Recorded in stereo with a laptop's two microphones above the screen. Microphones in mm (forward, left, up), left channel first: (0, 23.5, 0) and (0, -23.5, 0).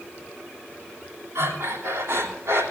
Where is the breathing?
75° right (ahead or behind), 2.5 m.